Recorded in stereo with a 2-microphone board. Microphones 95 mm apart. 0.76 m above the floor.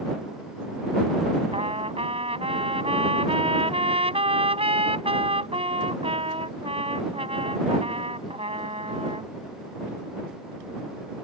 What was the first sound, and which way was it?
A trumpet, 85° right.